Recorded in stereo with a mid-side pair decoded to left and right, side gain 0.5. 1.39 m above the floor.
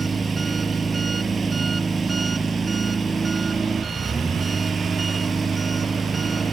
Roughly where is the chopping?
I don't hear chopping.